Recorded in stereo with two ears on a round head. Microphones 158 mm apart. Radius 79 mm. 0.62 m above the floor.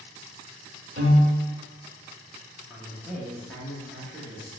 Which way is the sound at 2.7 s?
5° left (ahead or behind).